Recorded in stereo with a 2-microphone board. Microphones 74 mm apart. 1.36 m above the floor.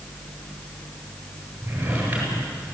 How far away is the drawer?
About 9 m.